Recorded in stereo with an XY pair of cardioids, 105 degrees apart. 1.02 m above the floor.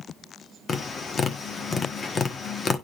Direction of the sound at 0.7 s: 45° left.